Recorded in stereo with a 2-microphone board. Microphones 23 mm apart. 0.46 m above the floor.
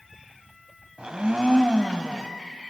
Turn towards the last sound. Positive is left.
turn(degrees=-40)  # may be behind; listen again after turning